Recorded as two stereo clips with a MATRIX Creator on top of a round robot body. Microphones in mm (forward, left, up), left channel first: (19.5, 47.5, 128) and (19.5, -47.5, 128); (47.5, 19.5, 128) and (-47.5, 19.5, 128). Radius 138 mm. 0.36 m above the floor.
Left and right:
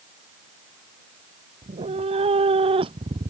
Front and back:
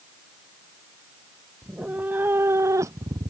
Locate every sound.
1.6 s a cat meowing: 100° right; by 3.3 s 130° right